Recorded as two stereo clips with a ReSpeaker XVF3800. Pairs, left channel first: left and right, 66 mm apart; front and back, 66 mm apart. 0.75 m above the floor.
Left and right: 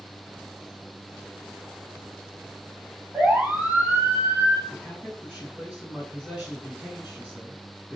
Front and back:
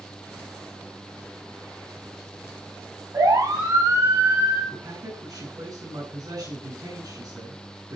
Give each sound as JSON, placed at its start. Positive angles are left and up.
{"t": 3.1, "sound": "a siren", "azimuth_deg": -160, "distance_m": 6.5}
{"t": 4.7, "sound": "a man speaking", "azimuth_deg": -170, "distance_m": 7.5}